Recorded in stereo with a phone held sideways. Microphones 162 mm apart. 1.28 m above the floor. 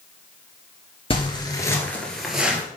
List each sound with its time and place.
1.1 s footsteps: 35° left (ahead or behind), 1.5 m; by 2.6 s 10° right (ahead or behind), 1.6 m